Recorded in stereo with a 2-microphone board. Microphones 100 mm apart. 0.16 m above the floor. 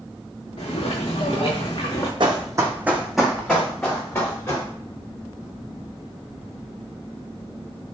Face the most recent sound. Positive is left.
turn(degrees=30)  # may be behind; listen again after turning